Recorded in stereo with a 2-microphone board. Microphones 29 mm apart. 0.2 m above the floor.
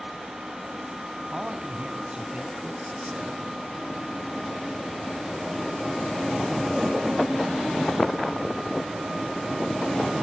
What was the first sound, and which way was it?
A man speaking, 25° right (ahead or behind).